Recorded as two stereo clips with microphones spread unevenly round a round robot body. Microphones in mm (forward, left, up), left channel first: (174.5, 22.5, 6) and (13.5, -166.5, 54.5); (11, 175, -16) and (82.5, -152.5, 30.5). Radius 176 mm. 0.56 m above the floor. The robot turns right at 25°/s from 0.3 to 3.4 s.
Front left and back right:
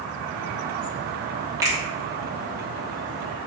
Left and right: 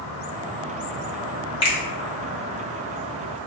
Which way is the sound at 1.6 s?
140° left.